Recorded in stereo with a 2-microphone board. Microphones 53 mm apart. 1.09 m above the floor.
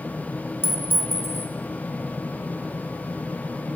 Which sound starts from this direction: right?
A clink, at 0.6 s.